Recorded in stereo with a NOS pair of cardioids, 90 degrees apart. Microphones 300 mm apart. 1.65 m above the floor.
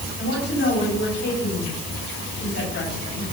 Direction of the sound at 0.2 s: 50° left.